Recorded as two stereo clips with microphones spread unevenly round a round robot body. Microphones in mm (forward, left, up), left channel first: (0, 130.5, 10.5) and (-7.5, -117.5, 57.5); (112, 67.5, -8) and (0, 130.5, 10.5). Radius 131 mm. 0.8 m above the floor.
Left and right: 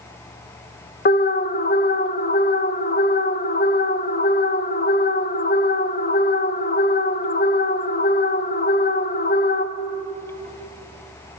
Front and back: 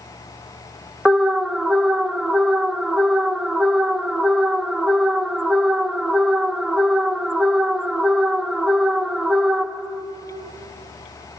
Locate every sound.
1.1 s an alarm: 55° left, 0.8 m